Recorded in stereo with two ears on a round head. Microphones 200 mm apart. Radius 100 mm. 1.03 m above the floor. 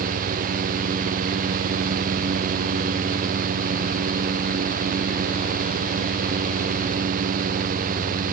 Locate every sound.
Only background noise.